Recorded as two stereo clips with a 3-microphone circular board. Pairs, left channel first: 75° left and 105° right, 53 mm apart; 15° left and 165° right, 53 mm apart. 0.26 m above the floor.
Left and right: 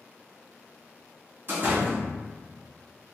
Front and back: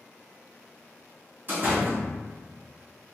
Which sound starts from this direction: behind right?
A door slam, at 1.5 s.